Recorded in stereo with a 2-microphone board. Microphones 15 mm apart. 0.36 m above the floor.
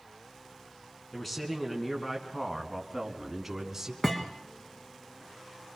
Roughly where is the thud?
Centre.